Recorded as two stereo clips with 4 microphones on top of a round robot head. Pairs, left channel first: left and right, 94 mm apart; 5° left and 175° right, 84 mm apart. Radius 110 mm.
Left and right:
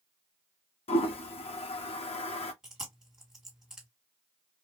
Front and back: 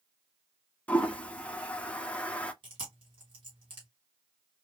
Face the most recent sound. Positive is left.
turn(degrees=-175)